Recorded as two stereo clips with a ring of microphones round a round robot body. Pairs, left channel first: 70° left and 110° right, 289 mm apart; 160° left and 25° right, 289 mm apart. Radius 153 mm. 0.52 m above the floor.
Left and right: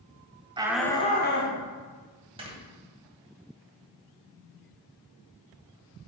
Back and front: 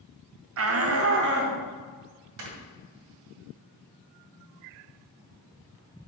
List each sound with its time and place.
0.6 s a shout: 45° right, 1.2 m; by 1.6 s 30° left, 1.6 m
2.4 s snoring: 40° right, 2 m